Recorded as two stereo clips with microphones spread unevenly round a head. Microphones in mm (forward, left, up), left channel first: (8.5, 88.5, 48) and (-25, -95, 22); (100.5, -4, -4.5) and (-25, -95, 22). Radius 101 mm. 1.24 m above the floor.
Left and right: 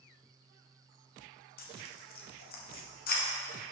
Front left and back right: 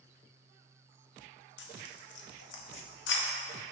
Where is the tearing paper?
40° left, 1.1 m.